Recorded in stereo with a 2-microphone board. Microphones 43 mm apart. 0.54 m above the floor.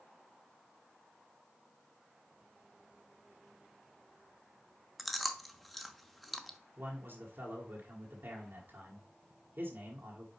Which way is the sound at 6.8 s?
55° right (ahead or behind).